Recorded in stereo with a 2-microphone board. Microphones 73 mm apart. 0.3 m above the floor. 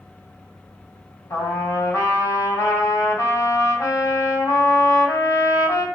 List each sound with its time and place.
1.3 s a trumpet: 40° left (ahead or behind), 2.5 m